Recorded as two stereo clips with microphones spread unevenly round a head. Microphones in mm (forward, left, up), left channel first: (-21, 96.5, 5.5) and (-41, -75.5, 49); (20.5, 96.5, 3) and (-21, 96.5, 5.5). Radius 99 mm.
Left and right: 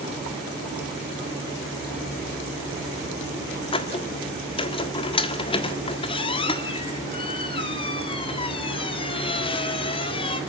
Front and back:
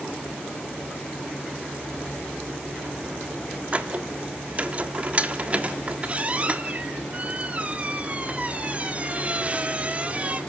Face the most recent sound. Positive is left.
turn(degrees=150)